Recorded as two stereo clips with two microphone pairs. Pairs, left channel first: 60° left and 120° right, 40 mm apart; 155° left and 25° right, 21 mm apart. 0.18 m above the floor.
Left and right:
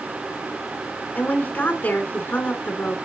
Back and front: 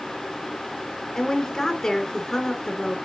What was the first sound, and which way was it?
A woman speaking, 105° left.